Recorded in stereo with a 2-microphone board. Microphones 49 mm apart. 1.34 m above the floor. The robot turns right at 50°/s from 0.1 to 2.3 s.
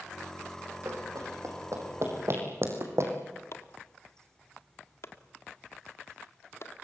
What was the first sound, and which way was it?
Running footsteps, 70° right (ahead or behind).